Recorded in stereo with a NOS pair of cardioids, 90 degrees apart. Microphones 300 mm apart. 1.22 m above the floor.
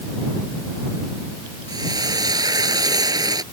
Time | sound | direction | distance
1.7 | frying | 10° right | ?